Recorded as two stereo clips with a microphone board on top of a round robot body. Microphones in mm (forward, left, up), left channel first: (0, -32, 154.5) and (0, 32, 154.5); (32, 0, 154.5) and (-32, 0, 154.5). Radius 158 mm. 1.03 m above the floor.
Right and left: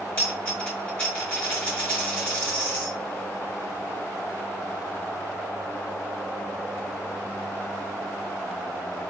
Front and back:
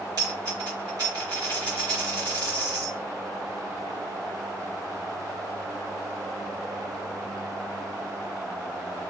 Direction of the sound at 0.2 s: 150° right.